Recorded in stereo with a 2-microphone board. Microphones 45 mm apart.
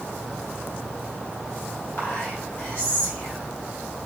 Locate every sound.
2.0 s whispering: 75° left (ahead or behind), 1.5 m